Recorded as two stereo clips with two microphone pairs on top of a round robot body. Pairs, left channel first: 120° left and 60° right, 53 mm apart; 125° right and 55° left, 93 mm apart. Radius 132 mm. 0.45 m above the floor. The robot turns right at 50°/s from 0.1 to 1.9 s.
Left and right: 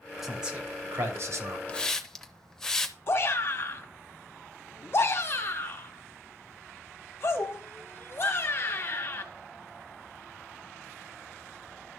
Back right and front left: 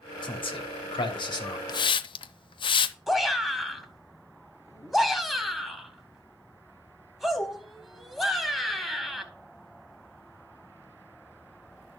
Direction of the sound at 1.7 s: 170° right.